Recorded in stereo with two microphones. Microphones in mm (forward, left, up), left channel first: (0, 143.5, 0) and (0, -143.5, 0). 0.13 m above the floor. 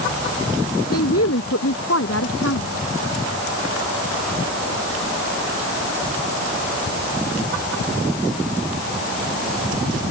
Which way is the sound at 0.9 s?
55° left (ahead or behind).